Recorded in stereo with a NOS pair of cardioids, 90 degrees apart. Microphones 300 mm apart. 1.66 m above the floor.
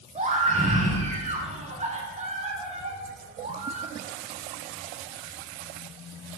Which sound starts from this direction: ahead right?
A scream, at 0.1 s.